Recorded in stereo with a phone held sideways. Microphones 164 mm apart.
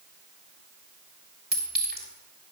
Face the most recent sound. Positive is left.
turn(degrees=-80)